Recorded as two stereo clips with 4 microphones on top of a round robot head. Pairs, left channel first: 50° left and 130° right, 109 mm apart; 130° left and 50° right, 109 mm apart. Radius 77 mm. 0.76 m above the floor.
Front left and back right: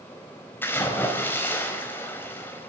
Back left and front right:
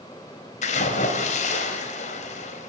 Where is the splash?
120° left, 4 m.